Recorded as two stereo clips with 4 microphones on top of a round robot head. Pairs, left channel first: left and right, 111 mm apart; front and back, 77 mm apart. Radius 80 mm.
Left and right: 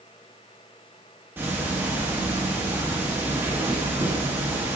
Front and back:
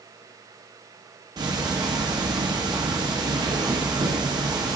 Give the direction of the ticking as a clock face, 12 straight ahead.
5 o'clock.